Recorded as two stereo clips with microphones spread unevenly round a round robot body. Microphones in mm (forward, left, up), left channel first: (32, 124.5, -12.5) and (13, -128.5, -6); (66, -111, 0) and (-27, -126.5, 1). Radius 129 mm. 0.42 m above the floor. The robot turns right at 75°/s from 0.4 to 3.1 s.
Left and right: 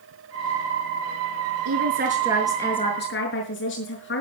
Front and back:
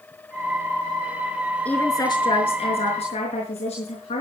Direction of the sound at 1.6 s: 65° right.